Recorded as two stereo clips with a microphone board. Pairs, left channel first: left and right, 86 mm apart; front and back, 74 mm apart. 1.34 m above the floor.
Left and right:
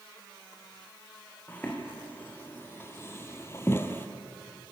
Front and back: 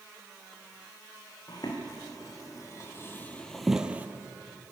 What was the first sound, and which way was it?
Footsteps, 20° left.